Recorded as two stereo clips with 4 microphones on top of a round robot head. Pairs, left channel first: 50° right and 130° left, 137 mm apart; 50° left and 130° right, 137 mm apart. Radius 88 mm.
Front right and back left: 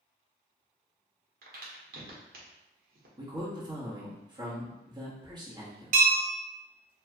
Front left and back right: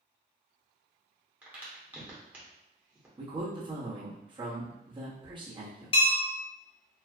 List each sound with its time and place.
1.4 s a crack: 150° left, 1.1 m
3.2 s a man speaking: straight behind, 1.3 m
5.9 s a bell: 100° left, 0.5 m